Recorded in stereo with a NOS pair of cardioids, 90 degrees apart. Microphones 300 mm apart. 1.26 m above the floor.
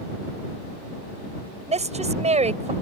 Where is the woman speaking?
20° right.